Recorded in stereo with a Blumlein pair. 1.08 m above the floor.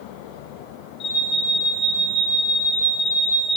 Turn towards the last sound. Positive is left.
turn(degrees=30)